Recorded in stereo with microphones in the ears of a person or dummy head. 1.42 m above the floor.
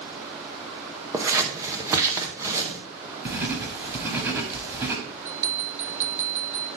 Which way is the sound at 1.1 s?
20° right (ahead or behind).